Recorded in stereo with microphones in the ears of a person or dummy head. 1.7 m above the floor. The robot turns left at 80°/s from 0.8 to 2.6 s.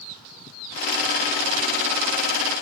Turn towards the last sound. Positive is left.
No sound to turn to.